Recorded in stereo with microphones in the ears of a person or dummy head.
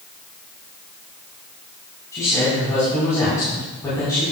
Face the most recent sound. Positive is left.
turn(degrees=20)  # may be behind; listen again after turning